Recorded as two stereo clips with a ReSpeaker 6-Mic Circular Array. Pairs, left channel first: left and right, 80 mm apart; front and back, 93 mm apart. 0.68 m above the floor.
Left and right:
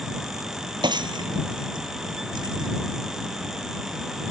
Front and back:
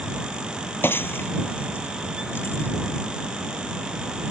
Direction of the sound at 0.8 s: 65° right.